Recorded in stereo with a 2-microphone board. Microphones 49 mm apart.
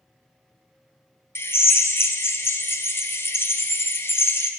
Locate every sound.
1.4 s a drill: 50° left (ahead or behind), 0.6 m